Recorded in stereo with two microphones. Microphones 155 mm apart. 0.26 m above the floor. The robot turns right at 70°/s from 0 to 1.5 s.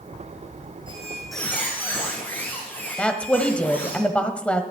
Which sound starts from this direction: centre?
A woman speaking, at 3.0 s.